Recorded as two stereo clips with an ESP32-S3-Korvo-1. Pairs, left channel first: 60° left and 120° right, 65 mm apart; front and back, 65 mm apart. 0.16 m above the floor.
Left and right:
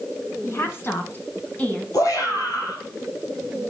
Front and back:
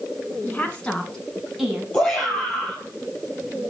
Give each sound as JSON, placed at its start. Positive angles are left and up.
{"t": 0.4, "sound": "a woman speaking", "azimuth_deg": 50, "distance_m": 2.0}
{"t": 1.9, "sound": "a shout", "azimuth_deg": 75, "distance_m": 4.0}